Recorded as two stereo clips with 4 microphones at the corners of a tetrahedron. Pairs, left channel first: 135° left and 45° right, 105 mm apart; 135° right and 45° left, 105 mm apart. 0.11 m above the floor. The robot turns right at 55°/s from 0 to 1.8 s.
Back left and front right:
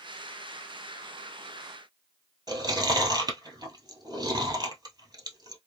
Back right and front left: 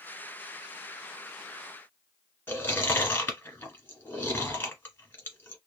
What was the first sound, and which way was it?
Chewing, 70° right.